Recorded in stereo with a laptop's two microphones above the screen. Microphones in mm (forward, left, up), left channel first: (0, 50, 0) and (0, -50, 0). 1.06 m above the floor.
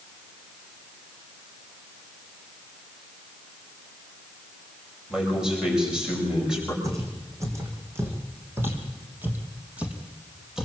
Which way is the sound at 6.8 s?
35° right (ahead or behind).